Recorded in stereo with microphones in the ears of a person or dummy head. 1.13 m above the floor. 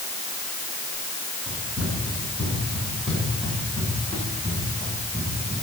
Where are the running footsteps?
10° right (ahead or behind), 6 m; by 5.6 s 15° left (ahead or behind), 9.5 m.